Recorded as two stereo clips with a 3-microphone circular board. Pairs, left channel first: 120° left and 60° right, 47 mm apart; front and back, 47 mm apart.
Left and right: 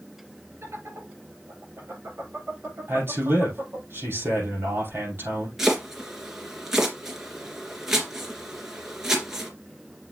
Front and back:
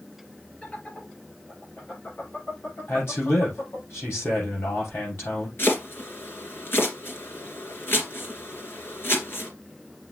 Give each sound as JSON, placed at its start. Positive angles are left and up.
{"t": 0.6, "sound": "laughter", "azimuth_deg": -55, "distance_m": 4.5}
{"t": 2.9, "sound": "a man speaking", "azimuth_deg": -25, "distance_m": 6.5}
{"t": 5.6, "sound": "chopping", "azimuth_deg": 20, "distance_m": 2.5}